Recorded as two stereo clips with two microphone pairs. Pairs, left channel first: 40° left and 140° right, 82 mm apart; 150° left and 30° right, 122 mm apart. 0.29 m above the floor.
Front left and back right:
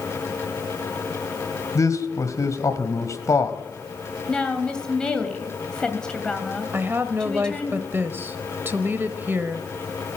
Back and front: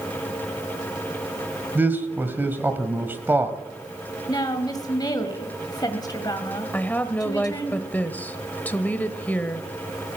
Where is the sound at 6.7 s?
155° right, 1.0 m.